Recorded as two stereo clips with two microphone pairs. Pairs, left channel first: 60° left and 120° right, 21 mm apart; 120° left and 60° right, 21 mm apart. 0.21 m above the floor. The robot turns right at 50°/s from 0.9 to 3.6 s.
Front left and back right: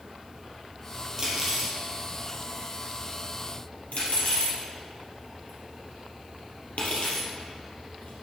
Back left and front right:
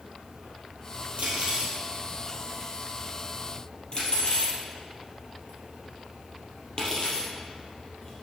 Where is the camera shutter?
I don't hear a camera shutter.